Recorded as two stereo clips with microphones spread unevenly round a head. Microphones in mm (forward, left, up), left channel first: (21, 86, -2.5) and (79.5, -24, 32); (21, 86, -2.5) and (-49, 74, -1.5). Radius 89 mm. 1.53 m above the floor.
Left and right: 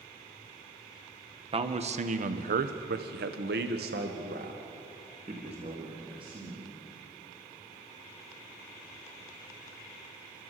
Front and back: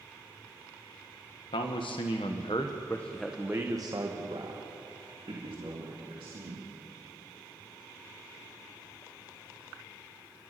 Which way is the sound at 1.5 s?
15° right.